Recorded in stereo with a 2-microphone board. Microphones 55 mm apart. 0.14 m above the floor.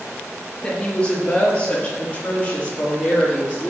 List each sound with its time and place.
0.6 s a woman speaking: 20° left (ahead or behind), 3 m; by 3.7 s 25° left (ahead or behind), 5 m